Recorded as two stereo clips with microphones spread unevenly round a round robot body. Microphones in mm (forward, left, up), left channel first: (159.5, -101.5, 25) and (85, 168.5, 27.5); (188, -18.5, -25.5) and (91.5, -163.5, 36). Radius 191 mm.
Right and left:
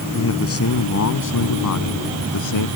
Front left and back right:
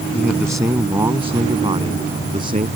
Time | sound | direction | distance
0.1 | a man speaking | 35° right | ?